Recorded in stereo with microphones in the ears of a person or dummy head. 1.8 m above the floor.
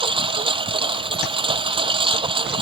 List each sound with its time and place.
0.0 s a lawn mower: 30° right (ahead or behind)